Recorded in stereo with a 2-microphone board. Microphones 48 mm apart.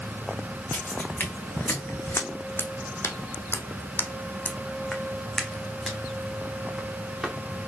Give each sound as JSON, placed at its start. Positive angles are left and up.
{"t": 0.7, "sound": "footsteps", "side_deg": 45, "distance_m": 1.7}